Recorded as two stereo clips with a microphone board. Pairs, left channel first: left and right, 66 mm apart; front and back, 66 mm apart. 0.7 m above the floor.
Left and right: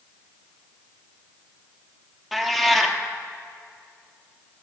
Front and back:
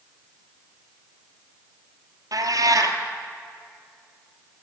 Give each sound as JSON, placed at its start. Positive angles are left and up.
{"t": 2.3, "sound": "a cat meowing", "azimuth_deg": 180, "distance_m": 1.5}